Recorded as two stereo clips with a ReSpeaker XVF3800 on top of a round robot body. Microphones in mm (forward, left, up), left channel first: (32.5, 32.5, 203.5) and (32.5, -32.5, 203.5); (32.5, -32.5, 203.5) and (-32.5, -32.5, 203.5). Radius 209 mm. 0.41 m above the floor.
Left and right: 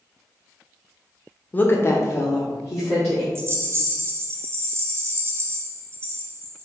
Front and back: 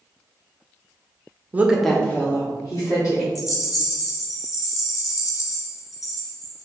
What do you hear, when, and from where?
1.5 s a woman speaking: 135° left, 0.9 m; by 3.2 s 35° left, 2 m
3.4 s a rattle: 40° right, 0.6 m